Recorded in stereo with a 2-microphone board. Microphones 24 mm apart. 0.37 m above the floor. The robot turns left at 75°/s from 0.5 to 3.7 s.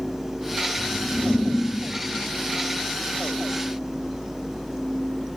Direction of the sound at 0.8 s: 115° right.